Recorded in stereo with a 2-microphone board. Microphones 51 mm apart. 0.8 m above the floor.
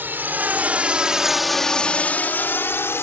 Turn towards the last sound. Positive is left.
turn(degrees=60)  # may be behind; listen again after turning